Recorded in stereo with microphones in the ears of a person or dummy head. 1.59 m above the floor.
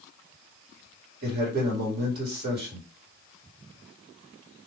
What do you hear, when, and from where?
1.2 s a man speaking: 45° right (ahead or behind), 1.6 m